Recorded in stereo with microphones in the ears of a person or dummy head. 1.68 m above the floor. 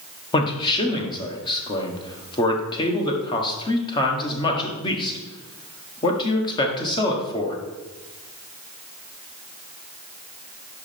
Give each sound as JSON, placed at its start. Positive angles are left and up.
{"t": 0.3, "sound": "a man speaking", "side_deg": 25, "distance_m": 1.2}